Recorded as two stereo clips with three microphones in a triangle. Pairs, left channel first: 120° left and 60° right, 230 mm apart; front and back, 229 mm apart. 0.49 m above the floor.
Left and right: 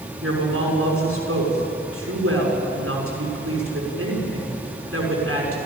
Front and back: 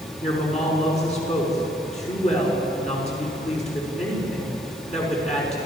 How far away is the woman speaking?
About 6 m.